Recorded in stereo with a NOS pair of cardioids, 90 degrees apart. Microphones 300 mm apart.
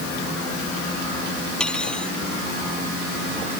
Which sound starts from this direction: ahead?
Cutlery clinking, at 1.6 s.